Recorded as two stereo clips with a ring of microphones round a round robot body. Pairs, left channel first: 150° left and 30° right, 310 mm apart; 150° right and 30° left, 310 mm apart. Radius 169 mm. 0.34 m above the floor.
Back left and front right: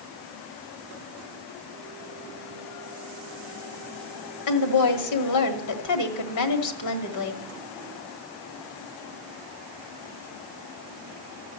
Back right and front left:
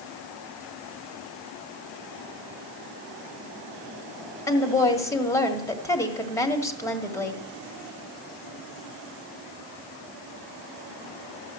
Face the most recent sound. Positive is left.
turn(degrees=130)